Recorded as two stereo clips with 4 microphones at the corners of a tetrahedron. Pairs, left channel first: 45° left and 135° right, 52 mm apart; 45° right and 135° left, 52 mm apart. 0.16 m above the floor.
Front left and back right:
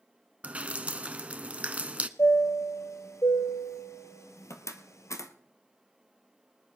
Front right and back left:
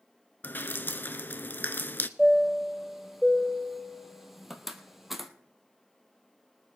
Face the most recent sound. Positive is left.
turn(degrees=50)